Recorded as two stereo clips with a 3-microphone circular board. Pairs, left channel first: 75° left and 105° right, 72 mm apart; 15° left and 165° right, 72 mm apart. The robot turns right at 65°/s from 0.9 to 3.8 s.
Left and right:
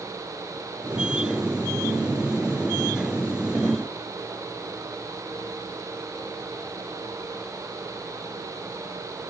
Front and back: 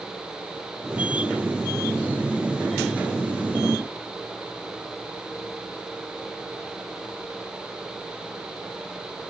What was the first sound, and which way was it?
Only background noise.